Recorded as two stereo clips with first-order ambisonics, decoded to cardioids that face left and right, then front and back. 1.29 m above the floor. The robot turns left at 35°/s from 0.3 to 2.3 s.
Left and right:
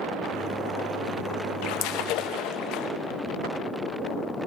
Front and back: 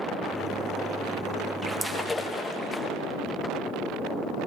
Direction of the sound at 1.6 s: 100° left.